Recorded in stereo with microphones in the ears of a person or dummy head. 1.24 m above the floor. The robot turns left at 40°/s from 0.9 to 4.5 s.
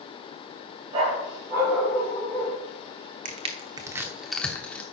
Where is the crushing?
40° right (ahead or behind), 1.0 m; by 4.8 s 10° left (ahead or behind), 1.0 m.